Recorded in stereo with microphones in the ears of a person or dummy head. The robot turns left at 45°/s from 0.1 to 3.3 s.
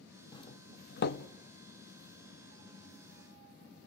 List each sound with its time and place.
0.3 s a doorbell: 25° left (ahead or behind), 0.7 m; by 1.2 s 65° left (ahead or behind), 0.7 m